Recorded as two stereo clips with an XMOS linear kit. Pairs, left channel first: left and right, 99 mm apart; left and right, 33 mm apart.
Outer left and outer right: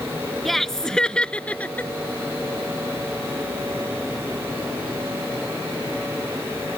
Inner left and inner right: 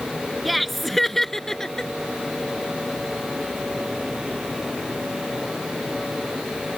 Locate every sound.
0.5 s laughter: centre (ahead or behind); by 1.9 s 15° left (ahead or behind)